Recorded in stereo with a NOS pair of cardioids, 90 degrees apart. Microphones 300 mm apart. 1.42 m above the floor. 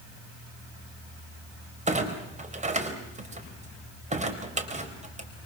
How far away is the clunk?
About 4 m.